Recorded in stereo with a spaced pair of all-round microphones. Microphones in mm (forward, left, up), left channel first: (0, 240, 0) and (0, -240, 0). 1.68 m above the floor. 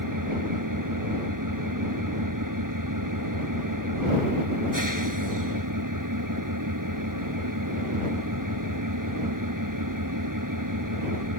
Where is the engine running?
40° right (ahead or behind).